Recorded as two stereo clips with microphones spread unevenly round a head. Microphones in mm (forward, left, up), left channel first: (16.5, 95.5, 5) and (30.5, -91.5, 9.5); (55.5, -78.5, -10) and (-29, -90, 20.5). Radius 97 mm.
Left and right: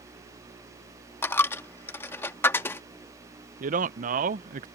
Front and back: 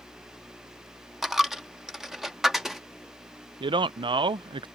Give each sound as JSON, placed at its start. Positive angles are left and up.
{"t": 1.2, "sound": "a dropped coin", "azimuth_deg": 165}
{"t": 3.6, "sound": "a man speaking", "azimuth_deg": -135}